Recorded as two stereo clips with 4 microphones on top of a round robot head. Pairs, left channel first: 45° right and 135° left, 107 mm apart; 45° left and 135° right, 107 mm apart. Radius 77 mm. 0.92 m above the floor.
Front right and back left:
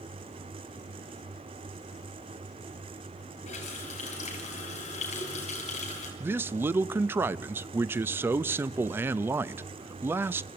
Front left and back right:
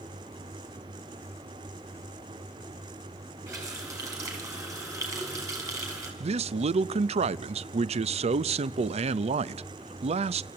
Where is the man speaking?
155° right, 0.6 m.